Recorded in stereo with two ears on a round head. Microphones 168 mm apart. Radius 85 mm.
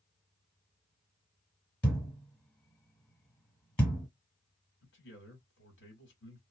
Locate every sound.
1.8 s a thud: 5° left (ahead or behind), 1.5 m
4.8 s a man speaking: 65° left (ahead or behind), 1.8 m